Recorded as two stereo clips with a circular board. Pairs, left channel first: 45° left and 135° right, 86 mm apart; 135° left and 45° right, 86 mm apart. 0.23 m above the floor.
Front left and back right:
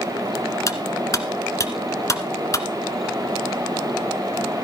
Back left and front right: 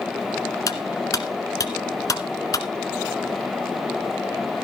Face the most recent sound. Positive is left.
turn(degrees=95)